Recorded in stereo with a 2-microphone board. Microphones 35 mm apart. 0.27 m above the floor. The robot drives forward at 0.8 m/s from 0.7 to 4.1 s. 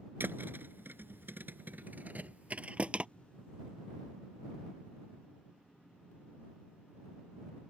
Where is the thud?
75° right (ahead or behind); by 3.1 s 35° right (ahead or behind).